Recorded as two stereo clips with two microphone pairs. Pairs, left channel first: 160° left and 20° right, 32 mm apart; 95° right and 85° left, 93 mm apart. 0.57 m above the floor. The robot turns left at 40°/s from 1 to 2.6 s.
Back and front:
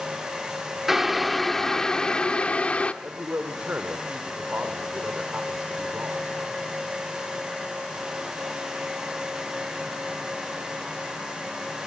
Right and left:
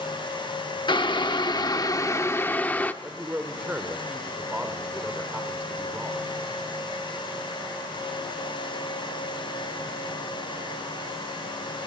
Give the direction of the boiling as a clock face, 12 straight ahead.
3 o'clock.